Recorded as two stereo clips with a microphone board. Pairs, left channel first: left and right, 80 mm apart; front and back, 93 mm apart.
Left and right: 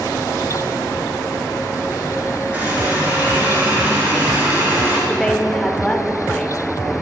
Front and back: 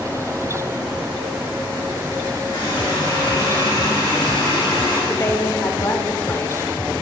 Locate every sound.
2.5 s a running tap: 20° right, 3.5 m
5.1 s a woman speaking: 15° left, 0.8 m